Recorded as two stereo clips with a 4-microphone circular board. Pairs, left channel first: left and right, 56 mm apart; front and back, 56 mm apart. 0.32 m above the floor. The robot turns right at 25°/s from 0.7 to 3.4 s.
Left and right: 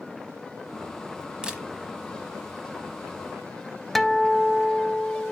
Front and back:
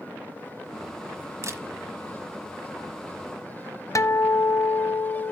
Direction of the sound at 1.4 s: 160° right.